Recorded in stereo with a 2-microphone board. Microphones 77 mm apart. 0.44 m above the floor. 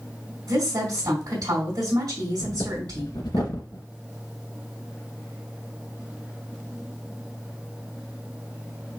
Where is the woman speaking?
60° right (ahead or behind), 2.5 m.